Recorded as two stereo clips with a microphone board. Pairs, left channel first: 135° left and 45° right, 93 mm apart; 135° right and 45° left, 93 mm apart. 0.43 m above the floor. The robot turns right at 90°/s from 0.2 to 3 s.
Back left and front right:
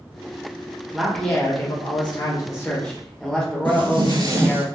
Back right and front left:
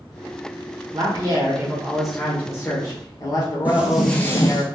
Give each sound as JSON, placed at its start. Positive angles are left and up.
{"t": 0.9, "sound": "a man speaking", "azimuth_deg": 30, "distance_m": 1.0}
{"t": 3.6, "sound": "footsteps", "azimuth_deg": -25, "distance_m": 0.8}